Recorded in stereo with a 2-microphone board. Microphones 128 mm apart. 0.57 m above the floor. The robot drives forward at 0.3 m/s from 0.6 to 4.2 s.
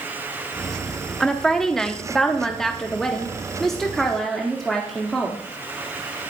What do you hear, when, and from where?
1.2 s a woman speaking: 5° left (ahead or behind), 0.8 m